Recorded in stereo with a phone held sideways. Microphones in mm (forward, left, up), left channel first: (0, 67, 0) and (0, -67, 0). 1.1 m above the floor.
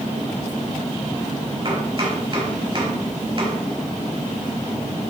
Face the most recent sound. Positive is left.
turn(degrees=-35)  # may be behind; listen again after turning